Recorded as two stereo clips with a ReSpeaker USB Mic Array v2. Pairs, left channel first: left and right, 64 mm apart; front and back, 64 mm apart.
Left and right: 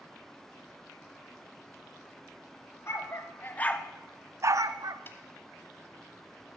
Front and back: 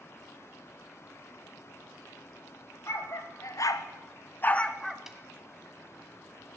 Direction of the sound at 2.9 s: 45° left.